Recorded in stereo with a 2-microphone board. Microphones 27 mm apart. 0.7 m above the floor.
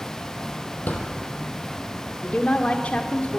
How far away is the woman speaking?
About 2 m.